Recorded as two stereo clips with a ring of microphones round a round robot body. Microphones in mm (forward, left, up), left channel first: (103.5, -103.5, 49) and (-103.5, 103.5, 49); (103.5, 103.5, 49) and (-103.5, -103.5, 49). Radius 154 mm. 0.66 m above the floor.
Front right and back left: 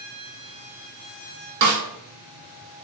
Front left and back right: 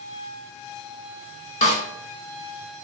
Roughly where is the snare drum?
Left.